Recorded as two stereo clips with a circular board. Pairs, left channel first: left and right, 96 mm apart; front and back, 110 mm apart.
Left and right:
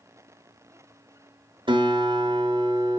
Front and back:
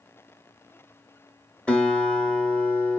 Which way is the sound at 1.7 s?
80° right.